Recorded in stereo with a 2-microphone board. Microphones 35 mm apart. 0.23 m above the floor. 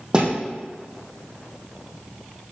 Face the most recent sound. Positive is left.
turn(degrees=-25)  # may be behind; listen again after turning